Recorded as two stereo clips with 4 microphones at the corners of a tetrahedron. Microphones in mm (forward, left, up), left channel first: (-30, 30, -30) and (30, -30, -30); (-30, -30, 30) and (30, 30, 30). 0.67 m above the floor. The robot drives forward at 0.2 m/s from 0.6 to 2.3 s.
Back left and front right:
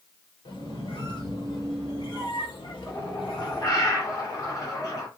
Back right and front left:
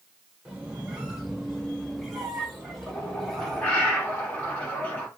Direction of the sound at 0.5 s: 125° left.